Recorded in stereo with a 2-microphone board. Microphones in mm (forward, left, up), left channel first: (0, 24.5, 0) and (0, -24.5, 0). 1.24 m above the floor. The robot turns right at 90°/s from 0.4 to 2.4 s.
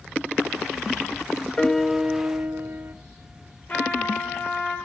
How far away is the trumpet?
About 8 m.